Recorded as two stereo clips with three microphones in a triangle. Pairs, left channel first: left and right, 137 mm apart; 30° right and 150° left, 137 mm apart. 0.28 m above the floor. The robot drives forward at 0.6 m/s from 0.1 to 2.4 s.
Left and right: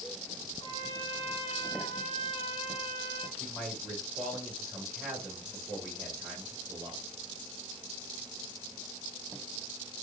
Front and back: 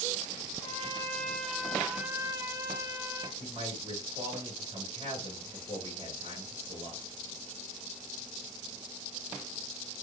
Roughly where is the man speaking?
Behind.